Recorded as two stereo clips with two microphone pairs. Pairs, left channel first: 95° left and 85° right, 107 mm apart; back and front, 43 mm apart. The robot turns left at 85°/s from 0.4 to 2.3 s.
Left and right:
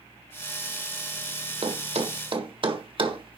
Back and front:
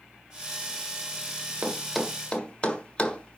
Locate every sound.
1.6 s a thud: 55° right, 1.5 m; by 3.4 s 115° right, 1.5 m